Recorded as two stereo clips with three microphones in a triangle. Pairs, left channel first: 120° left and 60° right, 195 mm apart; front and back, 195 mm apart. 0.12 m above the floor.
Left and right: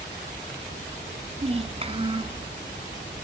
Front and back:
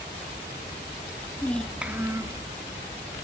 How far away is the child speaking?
About 0.9 m.